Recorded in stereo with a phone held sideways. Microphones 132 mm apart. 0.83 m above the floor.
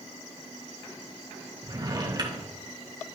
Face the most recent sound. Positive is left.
turn(degrees=-35)  # may be behind; listen again after turning